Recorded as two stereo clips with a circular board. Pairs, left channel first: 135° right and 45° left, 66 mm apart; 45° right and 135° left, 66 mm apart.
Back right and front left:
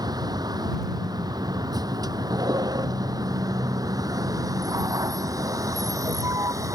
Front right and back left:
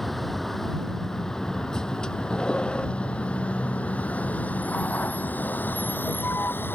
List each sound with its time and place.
0.0 s a vehicle: 40° left; by 6.8 s 10° left